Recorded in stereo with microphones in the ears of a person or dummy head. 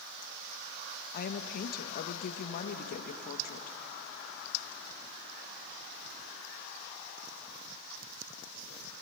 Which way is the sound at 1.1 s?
45° left (ahead or behind).